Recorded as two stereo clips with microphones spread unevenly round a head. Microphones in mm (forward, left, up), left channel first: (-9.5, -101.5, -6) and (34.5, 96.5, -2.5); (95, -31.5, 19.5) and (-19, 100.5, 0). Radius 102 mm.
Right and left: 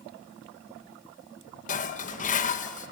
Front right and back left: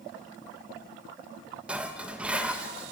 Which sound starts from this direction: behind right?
Dishes clattering, at 1.7 s.